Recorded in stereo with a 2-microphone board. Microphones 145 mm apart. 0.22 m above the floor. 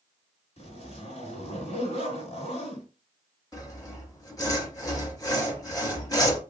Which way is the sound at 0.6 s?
45° left (ahead or behind).